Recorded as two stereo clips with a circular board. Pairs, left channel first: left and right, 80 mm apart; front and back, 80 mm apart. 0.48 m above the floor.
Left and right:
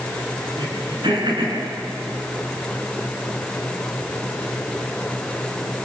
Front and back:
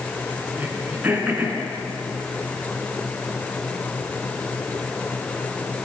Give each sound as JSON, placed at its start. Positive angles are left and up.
{"t": 0.6, "sound": "throat clearing", "azimuth_deg": -110, "distance_m": 5.5}